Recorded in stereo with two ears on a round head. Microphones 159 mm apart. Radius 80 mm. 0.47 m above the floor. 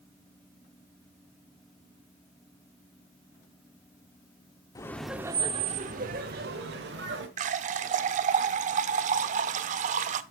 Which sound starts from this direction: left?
Laughter, at 4.8 s.